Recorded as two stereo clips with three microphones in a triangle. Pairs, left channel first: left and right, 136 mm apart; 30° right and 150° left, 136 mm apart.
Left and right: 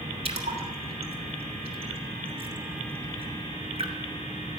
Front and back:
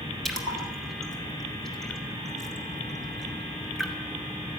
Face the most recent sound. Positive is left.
turn(degrees=-120)